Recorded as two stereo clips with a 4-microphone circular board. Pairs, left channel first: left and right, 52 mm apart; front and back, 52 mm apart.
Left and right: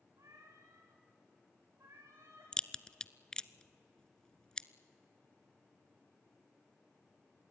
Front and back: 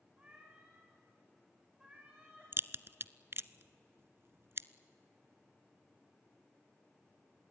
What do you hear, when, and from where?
0.2 s a cat meowing: 110° right, 5.5 m; by 2.5 s 105° right, 7 m
2.5 s a crack: 165° left, 0.5 m